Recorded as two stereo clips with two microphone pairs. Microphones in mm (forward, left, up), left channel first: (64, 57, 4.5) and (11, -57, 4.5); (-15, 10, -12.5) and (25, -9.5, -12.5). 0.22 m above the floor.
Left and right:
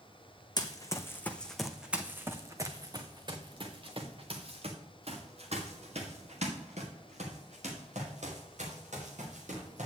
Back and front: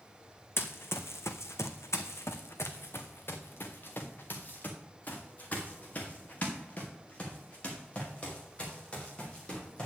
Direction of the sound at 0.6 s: 120° left.